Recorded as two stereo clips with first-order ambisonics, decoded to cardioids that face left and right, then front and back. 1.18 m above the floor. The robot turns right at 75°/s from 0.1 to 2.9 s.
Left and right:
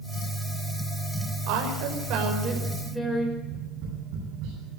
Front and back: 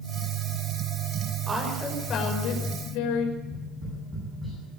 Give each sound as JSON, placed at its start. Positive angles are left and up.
{"t": 1.5, "sound": "a woman speaking", "azimuth_deg": -110, "distance_m": 5.5}
{"t": 3.4, "sound": "tapping", "azimuth_deg": -95, "distance_m": 10.0}